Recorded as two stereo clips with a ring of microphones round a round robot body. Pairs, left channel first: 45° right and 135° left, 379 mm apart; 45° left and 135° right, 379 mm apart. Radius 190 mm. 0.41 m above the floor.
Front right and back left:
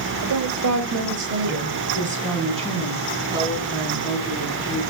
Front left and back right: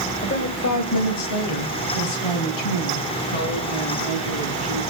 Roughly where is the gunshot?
No gunshot in this recording.